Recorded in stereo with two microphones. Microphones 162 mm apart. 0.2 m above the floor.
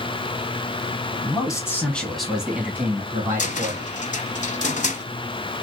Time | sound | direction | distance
1.2 | a man speaking | 25° left (ahead or behind) | 1.2 m
3.4 | a cupboard door | 50° left (ahead or behind) | 0.6 m